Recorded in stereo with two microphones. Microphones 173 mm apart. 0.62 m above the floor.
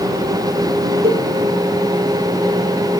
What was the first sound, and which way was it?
A cowbell, 65° right (ahead or behind).